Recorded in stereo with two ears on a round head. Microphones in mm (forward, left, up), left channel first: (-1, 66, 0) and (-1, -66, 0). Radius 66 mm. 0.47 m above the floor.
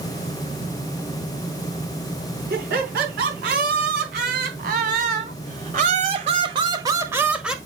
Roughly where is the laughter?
Right.